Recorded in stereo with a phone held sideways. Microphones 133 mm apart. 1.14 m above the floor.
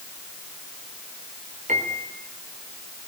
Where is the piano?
65° right (ahead or behind), 4.5 m.